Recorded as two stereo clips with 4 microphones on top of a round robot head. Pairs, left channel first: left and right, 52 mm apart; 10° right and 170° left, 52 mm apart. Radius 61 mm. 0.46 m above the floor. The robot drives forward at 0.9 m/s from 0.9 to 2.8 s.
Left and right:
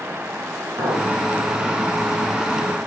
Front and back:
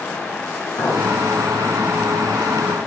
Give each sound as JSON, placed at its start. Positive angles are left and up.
{"t": 0.8, "sound": "a clink", "azimuth_deg": -40, "distance_m": 3.5}